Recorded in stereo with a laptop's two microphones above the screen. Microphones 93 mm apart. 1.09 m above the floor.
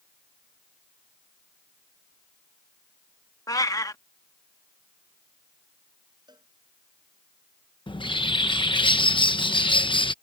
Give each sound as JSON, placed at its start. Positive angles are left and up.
{"t": 3.5, "sound": "a cat meowing", "side_deg": 40}
{"t": 6.3, "sound": "a cowbell", "side_deg": -50}
{"t": 7.9, "sound": "a bird", "side_deg": 60}